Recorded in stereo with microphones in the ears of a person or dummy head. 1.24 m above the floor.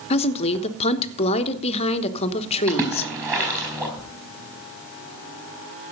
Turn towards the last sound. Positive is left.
turn(degrees=-15)  # may be behind; listen again after turning